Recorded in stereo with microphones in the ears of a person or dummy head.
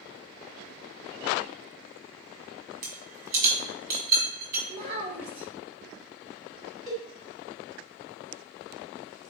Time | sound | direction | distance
2.8 | a rattle | 50° right (ahead or behind) | 1.8 m
4.7 | a child speaking | 80° right | 2.5 m
6.9 | a cowbell | 5° left (ahead or behind) | 1.6 m